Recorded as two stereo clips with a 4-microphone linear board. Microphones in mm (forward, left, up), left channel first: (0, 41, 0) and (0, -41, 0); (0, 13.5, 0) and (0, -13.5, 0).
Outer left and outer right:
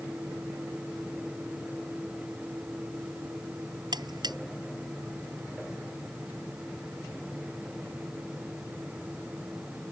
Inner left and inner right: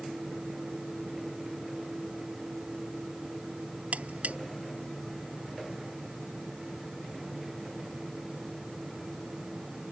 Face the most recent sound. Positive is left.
turn(degrees=-60)  # may be behind; listen again after turning